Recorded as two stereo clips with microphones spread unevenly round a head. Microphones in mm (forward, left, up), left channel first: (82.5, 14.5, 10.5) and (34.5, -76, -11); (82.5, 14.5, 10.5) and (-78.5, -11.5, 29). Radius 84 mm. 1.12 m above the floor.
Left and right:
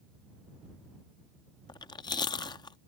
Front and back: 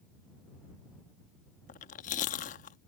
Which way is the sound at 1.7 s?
50° left.